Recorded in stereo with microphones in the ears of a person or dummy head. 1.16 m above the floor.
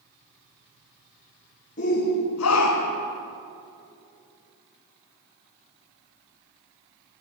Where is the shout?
40° left (ahead or behind), 1.1 m.